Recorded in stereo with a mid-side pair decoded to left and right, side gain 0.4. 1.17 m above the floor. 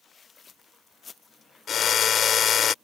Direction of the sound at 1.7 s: 65° left.